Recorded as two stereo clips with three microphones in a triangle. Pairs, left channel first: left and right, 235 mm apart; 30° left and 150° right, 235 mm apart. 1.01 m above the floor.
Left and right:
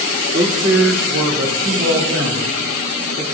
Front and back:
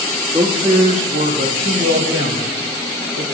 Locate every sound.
0.3 s a man speaking: 75° right, 1.7 m; by 3.2 s 125° right, 2.5 m